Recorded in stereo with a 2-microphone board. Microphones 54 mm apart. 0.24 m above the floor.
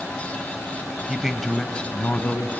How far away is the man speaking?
About 0.9 m.